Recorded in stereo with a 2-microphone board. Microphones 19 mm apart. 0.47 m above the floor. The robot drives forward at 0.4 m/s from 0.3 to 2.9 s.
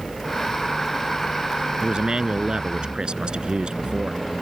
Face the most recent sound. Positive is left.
turn(degrees=-60)  # may be behind; listen again after turning